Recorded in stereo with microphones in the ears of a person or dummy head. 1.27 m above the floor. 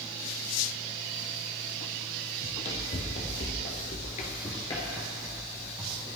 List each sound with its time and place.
2.4 s running footsteps: 35° left (ahead or behind), 3 m; by 6.2 s 20° right (ahead or behind), 2 m